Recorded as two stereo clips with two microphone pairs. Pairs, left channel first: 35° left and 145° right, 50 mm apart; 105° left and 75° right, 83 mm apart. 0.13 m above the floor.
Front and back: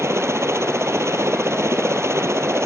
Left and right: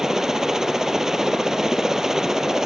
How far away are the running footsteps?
I don't hear running footsteps.